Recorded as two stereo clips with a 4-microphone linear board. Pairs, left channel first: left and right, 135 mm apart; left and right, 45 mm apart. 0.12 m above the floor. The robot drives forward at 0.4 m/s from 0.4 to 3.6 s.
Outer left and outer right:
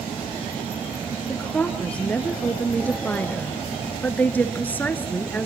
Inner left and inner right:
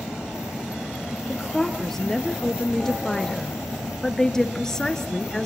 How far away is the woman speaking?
About 2 m.